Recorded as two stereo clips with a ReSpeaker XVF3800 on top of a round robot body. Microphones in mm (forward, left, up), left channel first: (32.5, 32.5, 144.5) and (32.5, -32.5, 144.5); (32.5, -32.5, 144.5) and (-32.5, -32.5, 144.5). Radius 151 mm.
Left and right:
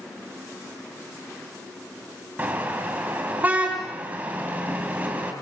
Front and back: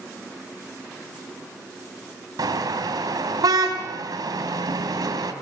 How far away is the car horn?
About 3 m.